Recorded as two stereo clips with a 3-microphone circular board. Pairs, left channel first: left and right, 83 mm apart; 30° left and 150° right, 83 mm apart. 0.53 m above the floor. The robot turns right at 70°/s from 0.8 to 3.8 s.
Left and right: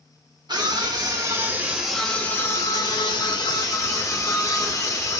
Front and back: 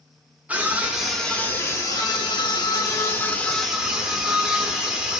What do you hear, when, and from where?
0.5 s a scream: 80° right, 1.0 m; by 5.2 s 130° left, 1.0 m